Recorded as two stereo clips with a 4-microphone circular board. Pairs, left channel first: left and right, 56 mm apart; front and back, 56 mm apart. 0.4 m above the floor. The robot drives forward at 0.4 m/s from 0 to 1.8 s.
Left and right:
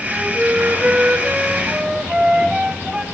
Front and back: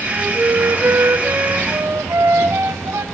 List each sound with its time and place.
0.1 s a flute: 150° right, 1.3 m; by 3.0 s 160° right, 1.8 m